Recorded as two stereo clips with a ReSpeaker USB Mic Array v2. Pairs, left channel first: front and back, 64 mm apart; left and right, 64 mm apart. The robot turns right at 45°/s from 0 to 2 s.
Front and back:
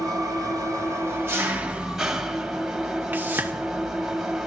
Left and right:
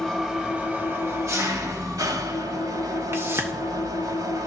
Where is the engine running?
175° left, 2 m; by 4.5 s 95° right, 2 m.